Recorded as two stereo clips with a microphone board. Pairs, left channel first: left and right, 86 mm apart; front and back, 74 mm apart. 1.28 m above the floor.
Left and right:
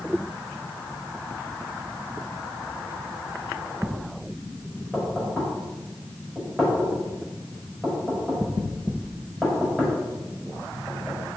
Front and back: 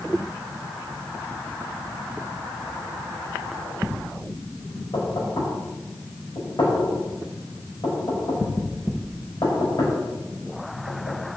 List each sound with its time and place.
4.9 s knocking: straight ahead, 5 m